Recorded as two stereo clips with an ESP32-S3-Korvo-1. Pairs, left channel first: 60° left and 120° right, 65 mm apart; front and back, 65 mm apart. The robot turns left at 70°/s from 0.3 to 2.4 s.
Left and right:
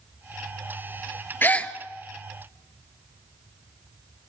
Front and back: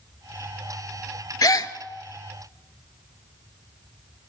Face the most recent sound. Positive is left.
turn(degrees=-65)